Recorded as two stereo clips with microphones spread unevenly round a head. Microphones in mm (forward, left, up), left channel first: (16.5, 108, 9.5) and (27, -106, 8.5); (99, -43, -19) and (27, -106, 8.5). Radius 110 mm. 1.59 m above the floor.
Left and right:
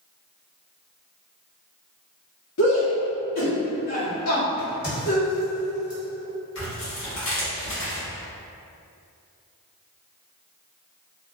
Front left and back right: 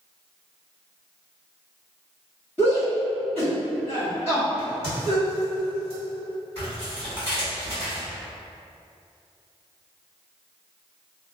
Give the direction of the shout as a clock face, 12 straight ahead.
9 o'clock.